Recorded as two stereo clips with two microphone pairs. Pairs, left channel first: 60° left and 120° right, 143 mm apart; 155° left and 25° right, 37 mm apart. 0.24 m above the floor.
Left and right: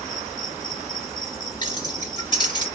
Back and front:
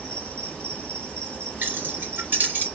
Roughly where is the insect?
Behind.